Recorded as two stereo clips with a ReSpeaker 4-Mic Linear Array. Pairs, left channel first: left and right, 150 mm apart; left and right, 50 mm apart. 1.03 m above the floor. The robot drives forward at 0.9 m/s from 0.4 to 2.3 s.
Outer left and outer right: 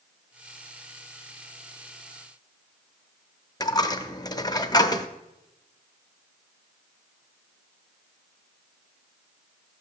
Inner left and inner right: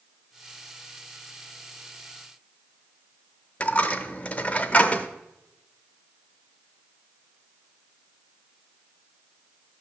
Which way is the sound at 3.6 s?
25° left (ahead or behind).